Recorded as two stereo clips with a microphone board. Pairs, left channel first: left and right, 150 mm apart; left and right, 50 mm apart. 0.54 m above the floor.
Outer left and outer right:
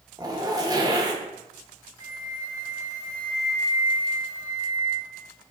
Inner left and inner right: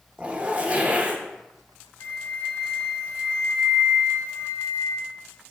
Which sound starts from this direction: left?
A flute, at 2.0 s.